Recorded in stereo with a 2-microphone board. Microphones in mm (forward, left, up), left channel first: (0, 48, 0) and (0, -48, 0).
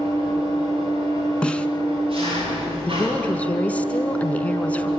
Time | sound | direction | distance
0.0 | an engine running | 70° right (ahead or behind) | 9 m
1.4 | a snare drum | 10° left (ahead or behind) | 1.0 m
2.9 | a woman speaking | 15° left (ahead or behind) | 1.7 m